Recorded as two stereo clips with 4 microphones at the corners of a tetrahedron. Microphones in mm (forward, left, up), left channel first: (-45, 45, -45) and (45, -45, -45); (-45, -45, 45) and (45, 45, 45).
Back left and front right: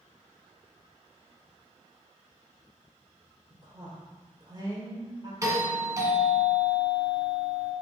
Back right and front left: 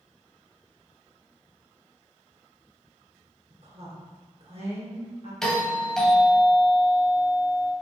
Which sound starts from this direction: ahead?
A woman speaking, at 3.5 s.